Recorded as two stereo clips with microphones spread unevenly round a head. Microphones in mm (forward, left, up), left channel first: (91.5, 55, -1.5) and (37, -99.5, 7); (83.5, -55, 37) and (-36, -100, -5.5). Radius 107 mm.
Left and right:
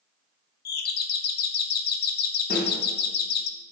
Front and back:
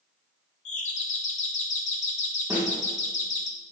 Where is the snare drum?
120° left, 2.0 m.